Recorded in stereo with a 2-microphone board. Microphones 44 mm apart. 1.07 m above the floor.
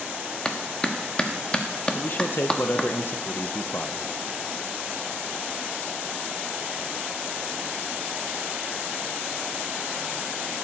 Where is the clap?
20° left (ahead or behind), 1.0 m.